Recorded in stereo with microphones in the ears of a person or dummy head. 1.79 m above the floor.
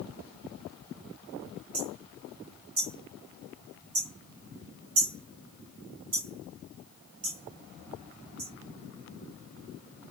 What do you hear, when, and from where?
1.7 s hammering: 25° right (ahead or behind), 1.8 m